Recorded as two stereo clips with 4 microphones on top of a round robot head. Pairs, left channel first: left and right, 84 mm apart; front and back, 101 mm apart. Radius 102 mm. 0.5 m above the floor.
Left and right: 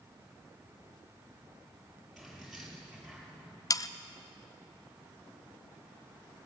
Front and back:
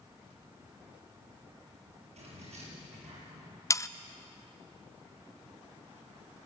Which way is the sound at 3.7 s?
55° left.